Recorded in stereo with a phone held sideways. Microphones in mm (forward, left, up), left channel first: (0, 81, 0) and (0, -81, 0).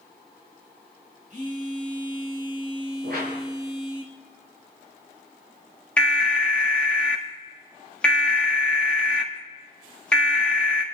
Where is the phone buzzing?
50° right (ahead or behind), 4 m.